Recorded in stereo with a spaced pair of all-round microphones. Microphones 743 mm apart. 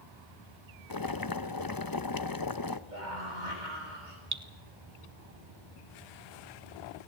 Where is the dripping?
25° right (ahead or behind), 1.3 m.